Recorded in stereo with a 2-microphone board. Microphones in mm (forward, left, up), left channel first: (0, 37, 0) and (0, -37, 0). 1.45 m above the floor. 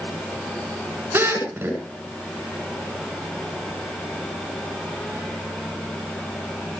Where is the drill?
30° right (ahead or behind), 9.5 m.